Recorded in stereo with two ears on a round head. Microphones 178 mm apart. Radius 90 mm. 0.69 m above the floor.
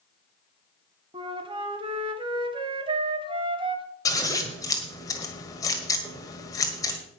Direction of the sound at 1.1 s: 25° right (ahead or behind).